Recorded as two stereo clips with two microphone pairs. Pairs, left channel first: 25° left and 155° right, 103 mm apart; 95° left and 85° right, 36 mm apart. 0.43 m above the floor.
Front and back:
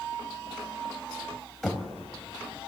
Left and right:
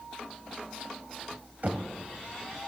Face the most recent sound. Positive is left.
turn(degrees=-65)